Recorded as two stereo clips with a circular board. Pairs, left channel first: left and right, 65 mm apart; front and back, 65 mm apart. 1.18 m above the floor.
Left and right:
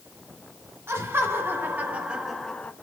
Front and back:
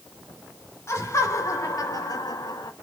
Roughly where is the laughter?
Ahead right.